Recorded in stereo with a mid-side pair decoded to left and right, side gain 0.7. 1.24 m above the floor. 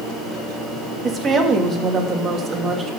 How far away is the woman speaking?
About 2.5 m.